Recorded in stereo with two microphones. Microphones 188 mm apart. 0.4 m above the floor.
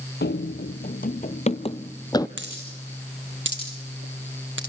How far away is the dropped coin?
About 5 m.